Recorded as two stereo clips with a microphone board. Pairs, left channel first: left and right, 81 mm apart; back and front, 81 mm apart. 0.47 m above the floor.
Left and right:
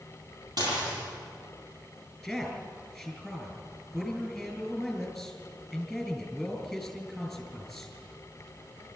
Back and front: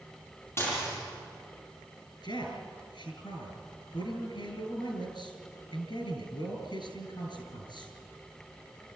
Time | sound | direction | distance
0.6 | dishes clattering | 120° right | 8.5 m
2.2 | a man speaking | 175° right | 5 m